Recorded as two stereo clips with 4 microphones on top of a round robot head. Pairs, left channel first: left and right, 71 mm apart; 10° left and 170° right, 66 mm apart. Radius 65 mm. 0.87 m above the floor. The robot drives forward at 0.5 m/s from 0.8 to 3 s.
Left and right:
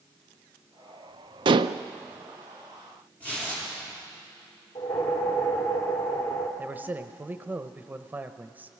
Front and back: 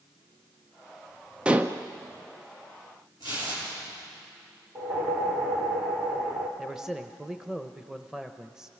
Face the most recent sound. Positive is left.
turn(degrees=-100)